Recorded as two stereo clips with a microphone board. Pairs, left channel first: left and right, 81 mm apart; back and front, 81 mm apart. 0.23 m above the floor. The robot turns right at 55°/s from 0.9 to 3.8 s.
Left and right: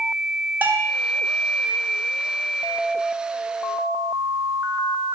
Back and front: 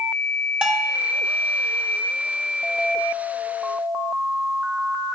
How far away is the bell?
About 1.0 m.